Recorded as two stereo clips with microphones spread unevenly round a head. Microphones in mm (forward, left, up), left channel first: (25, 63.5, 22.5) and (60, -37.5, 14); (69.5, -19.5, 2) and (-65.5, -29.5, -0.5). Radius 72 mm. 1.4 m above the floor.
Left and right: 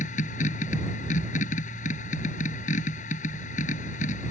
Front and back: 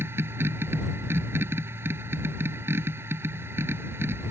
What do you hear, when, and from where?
0.0 s a machine running: 110° left